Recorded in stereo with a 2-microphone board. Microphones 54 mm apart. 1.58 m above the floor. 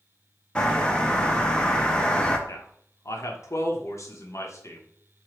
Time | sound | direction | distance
0.6 | a bird | 15° left (ahead or behind) | 0.6 m
2.5 | a man speaking | 60° left (ahead or behind) | 1.0 m